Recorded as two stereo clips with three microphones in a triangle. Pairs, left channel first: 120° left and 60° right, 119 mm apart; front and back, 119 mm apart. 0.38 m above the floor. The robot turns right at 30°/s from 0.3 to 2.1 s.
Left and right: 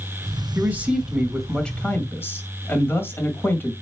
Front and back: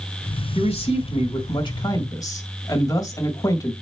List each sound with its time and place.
0.6 s a man speaking: 5° left, 2 m; by 3.7 s 55° left, 2 m